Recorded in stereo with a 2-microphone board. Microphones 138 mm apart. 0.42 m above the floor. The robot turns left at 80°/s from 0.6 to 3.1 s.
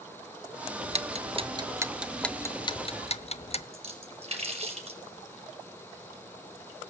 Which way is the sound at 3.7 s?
45° right (ahead or behind).